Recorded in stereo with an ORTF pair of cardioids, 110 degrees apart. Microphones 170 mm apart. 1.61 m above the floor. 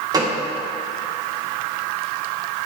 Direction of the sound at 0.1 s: 25° right.